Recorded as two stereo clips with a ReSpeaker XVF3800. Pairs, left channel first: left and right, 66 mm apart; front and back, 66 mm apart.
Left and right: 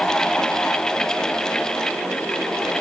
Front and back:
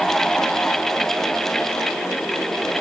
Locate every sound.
Only background noise.